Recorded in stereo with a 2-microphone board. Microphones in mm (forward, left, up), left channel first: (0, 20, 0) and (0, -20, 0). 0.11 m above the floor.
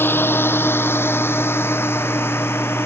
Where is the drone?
65° left (ahead or behind); by 2.9 s 80° left.